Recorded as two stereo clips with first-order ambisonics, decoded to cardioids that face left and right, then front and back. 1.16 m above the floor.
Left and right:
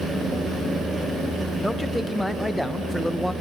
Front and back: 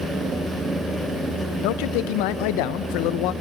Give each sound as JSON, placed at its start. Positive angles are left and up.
{"t": 1.6, "sound": "a man speaking", "azimuth_deg": 0, "distance_m": 0.7}